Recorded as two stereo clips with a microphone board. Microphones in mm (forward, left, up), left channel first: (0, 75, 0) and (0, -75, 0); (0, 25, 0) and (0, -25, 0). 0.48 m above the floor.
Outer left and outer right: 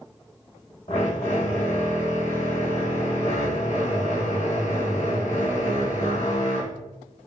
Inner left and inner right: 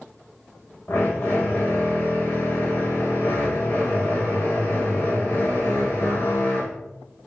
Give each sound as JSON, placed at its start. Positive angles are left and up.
{"t": 0.9, "sound": "a drill", "side_deg": 50, "distance_m": 1.2}